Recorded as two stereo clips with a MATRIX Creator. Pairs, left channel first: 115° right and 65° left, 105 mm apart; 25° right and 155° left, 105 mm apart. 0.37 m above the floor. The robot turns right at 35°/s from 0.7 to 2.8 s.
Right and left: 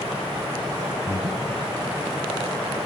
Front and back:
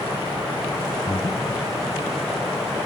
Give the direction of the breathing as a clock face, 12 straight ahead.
3 o'clock.